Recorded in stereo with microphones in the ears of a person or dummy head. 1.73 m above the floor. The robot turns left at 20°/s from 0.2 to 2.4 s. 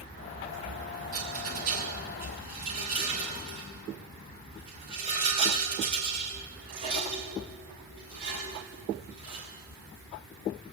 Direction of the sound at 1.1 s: 55° right (ahead or behind).